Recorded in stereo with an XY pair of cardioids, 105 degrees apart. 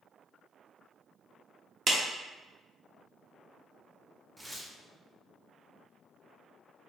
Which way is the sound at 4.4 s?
10° right.